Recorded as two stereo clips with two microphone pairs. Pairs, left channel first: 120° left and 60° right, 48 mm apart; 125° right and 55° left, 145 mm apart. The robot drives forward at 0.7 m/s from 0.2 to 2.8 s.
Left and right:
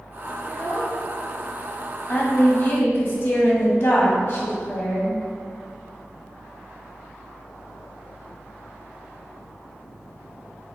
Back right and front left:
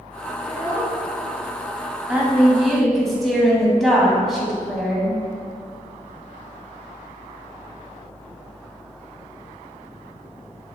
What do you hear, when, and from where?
0.4 s a child speaking: 55° left, 2.5 m; by 1.0 s 65° left, 2.5 m
2.1 s a woman speaking: 130° left, 1.5 m; by 5.2 s 145° left, 1.8 m